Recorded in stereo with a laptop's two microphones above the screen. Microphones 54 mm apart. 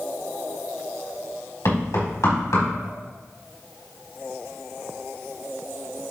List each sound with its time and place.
1.6 s knocking: 85° left, 4 m